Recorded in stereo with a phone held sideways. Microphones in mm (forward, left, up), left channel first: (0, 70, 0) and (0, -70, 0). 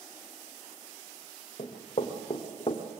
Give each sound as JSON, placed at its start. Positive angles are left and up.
{"t": 1.6, "sound": "running footsteps", "side_deg": 45, "distance_m": 3.0}